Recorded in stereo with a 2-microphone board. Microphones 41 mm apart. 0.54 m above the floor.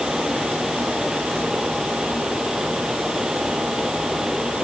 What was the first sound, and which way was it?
Only background noise.